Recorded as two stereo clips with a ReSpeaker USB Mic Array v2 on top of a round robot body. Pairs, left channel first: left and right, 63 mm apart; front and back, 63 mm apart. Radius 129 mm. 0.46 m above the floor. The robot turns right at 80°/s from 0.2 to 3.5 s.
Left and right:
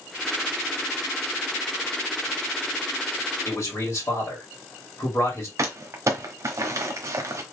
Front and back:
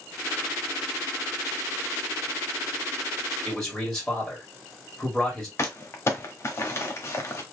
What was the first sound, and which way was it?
A man speaking, 70° left.